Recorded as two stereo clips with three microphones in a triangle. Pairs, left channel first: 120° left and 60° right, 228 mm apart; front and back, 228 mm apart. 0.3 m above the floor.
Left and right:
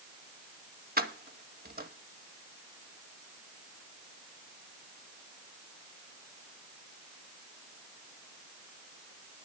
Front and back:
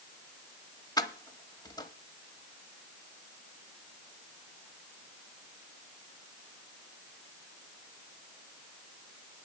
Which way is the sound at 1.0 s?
65° right.